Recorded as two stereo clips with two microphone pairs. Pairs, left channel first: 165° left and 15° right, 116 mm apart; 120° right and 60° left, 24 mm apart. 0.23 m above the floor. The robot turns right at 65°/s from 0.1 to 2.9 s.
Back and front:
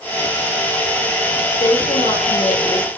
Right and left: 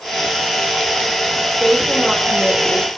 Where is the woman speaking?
145° left, 10 m; by 2.9 s 130° right, 10 m.